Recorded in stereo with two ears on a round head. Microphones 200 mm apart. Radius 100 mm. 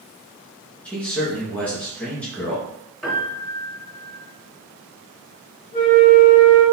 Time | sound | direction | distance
0.8 | a man speaking | 5° left (ahead or behind) | 0.9 m
3.0 | a piano | 5° left (ahead or behind) | 1.7 m
5.7 | a flute | 40° left (ahead or behind) | 1.9 m